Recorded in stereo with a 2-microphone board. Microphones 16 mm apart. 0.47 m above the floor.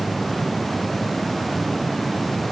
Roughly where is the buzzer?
I don't hear a buzzer.